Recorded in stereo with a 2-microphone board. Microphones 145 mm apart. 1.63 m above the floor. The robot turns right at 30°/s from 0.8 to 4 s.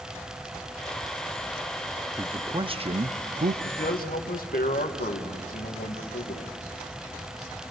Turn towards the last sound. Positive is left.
turn(degrees=85)